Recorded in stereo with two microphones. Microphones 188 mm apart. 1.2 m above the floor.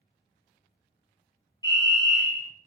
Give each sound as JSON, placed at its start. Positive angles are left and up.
{"t": 1.6, "sound": "a fire alarm", "side_deg": 25, "distance_m": 1.4}